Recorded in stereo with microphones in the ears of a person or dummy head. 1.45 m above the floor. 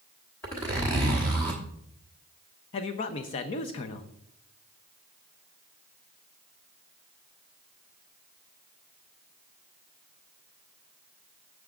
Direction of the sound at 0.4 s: 10° left (ahead or behind).